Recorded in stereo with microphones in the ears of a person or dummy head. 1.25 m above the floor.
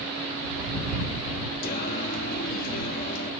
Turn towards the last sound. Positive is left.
turn(degrees=50)  # may be behind; listen again after turning